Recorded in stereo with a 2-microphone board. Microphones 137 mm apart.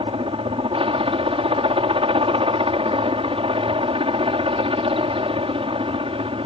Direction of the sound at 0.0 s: 40° right (ahead or behind).